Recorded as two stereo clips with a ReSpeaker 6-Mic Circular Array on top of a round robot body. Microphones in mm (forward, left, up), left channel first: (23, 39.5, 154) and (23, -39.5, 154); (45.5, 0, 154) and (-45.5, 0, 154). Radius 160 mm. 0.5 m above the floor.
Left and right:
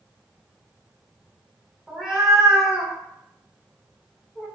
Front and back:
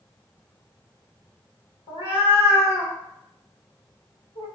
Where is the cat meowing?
5° right, 1.2 m.